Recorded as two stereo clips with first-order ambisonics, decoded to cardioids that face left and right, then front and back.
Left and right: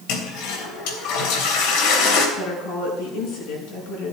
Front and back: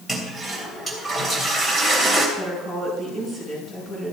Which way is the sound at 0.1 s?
85° left.